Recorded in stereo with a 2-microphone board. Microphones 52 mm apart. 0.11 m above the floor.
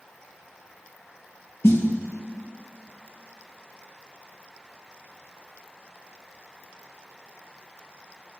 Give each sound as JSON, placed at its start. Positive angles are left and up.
{"t": 1.6, "sound": "a snare drum", "side_deg": 55, "distance_m": 1.2}